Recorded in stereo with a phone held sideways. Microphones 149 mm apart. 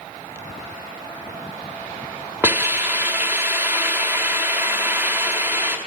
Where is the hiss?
15° right (ahead or behind), 1.2 m.